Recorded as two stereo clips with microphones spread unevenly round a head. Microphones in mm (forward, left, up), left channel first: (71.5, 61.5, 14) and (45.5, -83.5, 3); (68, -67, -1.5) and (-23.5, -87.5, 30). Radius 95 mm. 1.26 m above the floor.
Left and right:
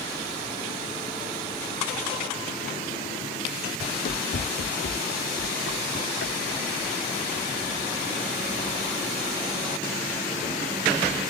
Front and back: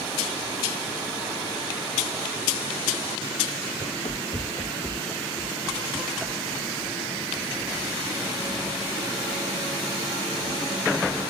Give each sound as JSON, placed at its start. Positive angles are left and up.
{"t": 3.8, "sound": "running footsteps", "azimuth_deg": 70}